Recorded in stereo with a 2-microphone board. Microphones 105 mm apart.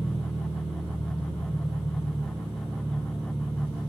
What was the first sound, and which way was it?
An engine running, 15° right (ahead or behind).